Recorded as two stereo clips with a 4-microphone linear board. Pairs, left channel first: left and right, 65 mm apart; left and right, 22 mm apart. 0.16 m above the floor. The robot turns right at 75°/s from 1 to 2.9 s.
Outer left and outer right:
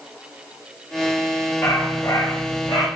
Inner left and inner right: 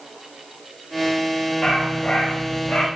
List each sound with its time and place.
1.6 s a dog barking: 30° left, 7.5 m; by 2.9 s 125° left, 7.5 m